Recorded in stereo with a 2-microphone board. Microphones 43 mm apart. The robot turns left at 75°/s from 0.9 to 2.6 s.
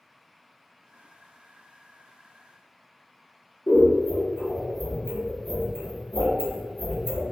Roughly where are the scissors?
Left.